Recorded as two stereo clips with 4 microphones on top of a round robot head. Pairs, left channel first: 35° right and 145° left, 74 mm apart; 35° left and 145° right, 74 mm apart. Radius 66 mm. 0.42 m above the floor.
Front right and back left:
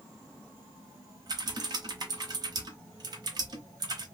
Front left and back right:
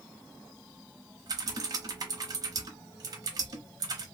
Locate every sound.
1.3 s typing on a keyboard: 175° left, 0.9 m